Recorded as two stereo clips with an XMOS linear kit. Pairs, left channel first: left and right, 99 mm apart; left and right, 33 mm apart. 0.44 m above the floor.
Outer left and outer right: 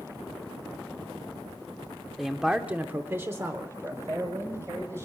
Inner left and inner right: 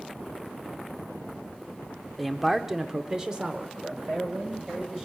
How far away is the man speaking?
About 0.7 m.